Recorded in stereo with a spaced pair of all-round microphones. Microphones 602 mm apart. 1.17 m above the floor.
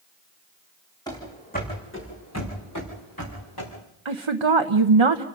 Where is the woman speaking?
50° right (ahead or behind), 0.9 m.